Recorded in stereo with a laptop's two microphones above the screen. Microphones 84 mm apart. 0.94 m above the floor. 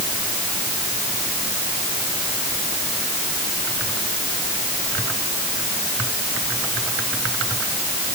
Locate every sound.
Only background noise.